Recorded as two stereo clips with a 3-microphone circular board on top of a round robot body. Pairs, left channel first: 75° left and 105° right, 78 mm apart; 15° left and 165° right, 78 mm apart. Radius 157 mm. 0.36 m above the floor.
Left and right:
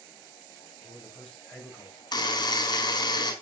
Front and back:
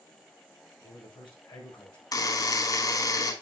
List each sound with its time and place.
0.8 s a man speaking: 10° right, 7 m
2.1 s a buzzer: 50° left, 4 m